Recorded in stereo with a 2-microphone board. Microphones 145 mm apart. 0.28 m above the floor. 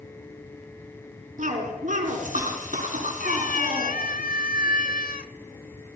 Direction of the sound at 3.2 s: 75° left (ahead or behind).